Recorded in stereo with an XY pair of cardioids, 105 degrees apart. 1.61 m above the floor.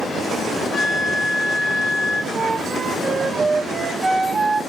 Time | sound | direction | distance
0.7 | a flute | 70° left | 1.7 m
2.3 | a flute | 20° right | 1.4 m